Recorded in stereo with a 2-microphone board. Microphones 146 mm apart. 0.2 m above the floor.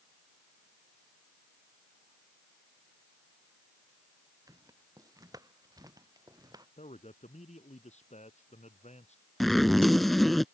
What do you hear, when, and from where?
4.5 s footsteps: 25° right (ahead or behind)
6.8 s a man speaking: 50° left (ahead or behind)
9.4 s a zipper: centre (ahead or behind)